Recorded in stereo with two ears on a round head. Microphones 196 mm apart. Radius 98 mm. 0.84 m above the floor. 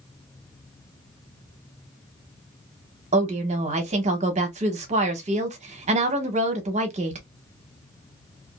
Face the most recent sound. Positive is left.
turn(degrees=-30)  # may be behind; listen again after turning